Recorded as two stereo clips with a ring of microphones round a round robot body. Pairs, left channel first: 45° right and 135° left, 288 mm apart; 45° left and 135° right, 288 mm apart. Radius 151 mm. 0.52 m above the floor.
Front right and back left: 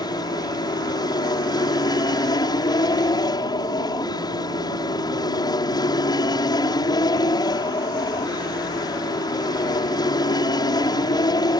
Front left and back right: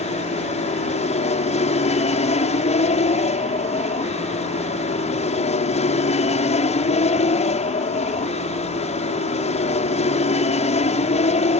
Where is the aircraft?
15° left.